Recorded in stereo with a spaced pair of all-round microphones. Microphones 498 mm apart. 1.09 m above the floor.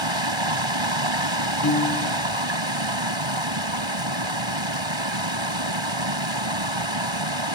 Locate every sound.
0.0 s running water: 65° right (ahead or behind)
1.6 s a piano: 35° left (ahead or behind)